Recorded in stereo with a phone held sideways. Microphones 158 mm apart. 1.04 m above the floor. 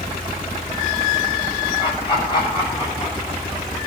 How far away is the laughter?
About 9 m.